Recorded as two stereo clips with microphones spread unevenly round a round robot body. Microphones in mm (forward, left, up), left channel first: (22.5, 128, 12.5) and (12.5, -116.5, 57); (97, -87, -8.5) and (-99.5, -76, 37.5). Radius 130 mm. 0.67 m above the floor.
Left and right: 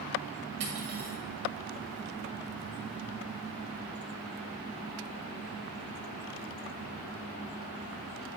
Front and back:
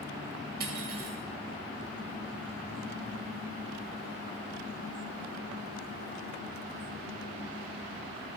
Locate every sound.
0.6 s cutlery clinking: 145° right, 1.9 m